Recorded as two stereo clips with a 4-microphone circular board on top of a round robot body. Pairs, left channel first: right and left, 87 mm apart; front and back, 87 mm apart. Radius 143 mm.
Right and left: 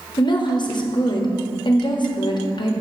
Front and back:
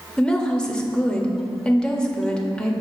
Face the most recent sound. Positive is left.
turn(degrees=-80)